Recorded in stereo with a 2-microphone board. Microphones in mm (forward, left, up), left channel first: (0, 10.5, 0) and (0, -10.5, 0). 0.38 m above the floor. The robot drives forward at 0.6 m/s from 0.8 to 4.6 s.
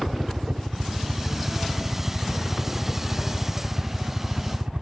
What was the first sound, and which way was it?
A helicopter, 55° right (ahead or behind).